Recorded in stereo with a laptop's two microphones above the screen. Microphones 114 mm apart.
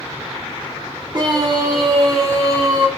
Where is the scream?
40° right (ahead or behind), 2.5 m; by 2.9 s 25° right (ahead or behind), 4.5 m.